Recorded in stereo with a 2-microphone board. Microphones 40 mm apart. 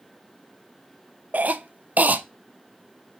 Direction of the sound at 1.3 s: 45° right (ahead or behind).